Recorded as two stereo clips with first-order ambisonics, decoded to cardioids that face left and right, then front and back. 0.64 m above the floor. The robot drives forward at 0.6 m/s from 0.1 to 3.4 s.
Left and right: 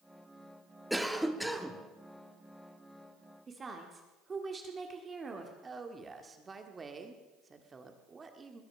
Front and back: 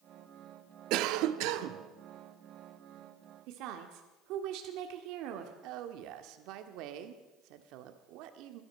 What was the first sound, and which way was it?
A cough, straight behind.